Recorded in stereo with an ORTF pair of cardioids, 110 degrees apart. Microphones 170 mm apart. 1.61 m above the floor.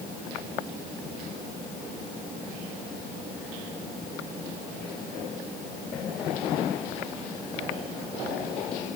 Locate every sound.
Only background noise.